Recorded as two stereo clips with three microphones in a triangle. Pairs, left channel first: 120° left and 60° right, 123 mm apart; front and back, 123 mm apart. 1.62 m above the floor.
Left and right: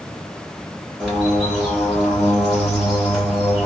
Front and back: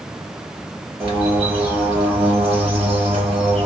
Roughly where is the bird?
Behind right.